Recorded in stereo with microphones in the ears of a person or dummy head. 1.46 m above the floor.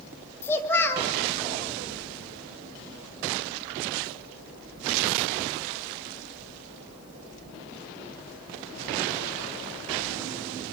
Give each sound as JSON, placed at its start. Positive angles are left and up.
{"t": 0.4, "sound": "a child speaking", "side_deg": 15, "distance_m": 1.7}